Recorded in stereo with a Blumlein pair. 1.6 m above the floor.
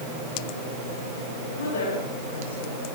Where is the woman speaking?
65° left, 8.5 m.